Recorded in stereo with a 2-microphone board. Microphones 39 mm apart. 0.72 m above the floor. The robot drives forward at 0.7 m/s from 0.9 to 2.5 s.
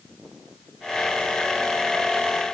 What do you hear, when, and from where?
Only background noise.